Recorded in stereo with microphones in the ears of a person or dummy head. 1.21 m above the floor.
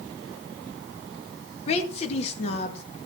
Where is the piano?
No piano in this recording.